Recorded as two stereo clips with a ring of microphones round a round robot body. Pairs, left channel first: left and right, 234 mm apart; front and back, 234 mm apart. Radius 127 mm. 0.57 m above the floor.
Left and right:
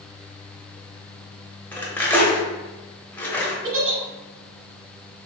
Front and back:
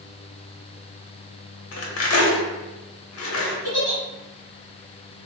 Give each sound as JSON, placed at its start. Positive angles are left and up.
{"t": 1.7, "sound": "cutlery clinking", "azimuth_deg": 10, "distance_m": 0.7}
{"t": 3.6, "sound": "a giggle", "azimuth_deg": -60, "distance_m": 0.9}